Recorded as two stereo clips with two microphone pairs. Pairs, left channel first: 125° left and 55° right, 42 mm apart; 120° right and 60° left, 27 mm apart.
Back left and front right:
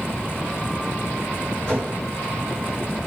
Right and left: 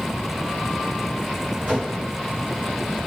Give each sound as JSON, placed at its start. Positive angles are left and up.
{"t": 1.7, "sound": "a whoosh", "azimuth_deg": 65, "distance_m": 1.8}